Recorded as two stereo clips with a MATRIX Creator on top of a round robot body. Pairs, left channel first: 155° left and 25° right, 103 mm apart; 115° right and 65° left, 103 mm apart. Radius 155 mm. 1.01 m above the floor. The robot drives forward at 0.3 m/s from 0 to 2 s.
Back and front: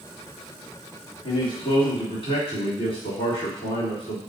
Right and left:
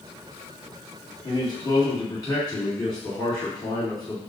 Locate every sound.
1.2 s a man speaking: 165° right, 2.5 m